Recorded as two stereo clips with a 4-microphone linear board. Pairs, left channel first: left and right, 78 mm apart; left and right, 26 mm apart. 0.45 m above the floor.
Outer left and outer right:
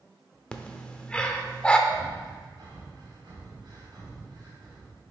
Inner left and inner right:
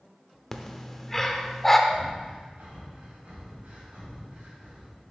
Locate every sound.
0.5 s breathing: 15° left (ahead or behind), 0.7 m
1.9 s breathing: 65° right (ahead or behind), 2.5 m